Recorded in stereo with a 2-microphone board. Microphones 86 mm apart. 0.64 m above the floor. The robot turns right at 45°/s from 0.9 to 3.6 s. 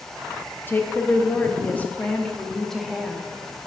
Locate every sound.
0.7 s a woman speaking: 25° left (ahead or behind), 0.6 m; by 3.2 s 5° right (ahead or behind), 0.6 m